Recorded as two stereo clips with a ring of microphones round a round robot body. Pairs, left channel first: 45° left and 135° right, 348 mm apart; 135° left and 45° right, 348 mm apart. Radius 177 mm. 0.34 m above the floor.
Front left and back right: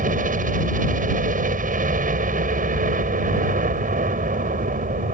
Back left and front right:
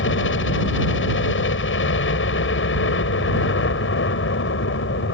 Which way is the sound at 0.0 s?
170° left.